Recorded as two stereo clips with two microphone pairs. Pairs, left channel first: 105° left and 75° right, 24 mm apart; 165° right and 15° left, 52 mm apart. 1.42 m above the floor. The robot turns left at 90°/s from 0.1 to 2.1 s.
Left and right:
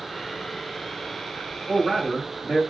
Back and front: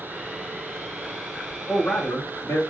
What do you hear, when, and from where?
1.7 s a man speaking: 110° right, 1.5 m; by 2.6 s 150° right, 1.5 m